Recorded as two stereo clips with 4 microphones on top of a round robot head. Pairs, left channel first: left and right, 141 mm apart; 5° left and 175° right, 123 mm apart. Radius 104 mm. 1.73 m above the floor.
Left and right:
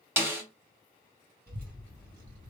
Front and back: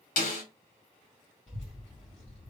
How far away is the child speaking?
About 1.9 m.